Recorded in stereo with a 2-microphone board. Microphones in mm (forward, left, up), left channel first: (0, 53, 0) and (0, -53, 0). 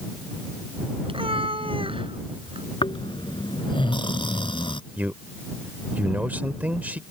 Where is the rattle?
I don't hear a rattle.